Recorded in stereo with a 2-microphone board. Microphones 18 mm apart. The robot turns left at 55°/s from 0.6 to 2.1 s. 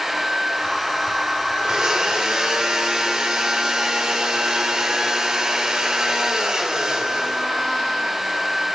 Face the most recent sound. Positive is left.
turn(degrees=-45)  # may be behind; listen again after turning